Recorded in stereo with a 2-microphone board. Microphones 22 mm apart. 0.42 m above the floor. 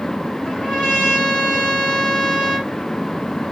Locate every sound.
0.5 s a trumpet: 55° left (ahead or behind), 2.5 m